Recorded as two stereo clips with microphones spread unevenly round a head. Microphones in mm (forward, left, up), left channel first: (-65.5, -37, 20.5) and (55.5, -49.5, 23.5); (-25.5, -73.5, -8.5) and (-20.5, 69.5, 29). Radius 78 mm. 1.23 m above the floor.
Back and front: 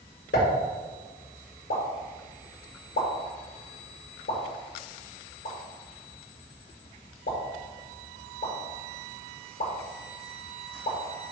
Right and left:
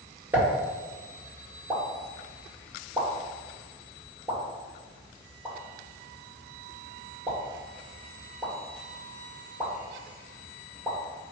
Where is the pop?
170° left, 1.8 m.